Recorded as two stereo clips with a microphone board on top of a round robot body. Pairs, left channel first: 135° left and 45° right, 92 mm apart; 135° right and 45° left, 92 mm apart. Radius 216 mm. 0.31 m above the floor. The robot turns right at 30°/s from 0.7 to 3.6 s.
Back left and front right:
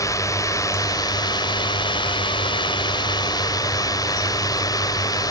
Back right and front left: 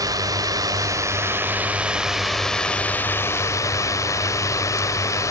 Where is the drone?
85° left; by 5.3 s 175° left.